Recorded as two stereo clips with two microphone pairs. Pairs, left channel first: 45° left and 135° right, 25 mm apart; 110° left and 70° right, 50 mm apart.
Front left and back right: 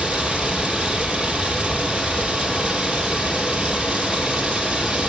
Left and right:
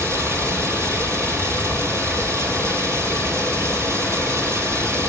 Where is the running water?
100° right, 2.5 m.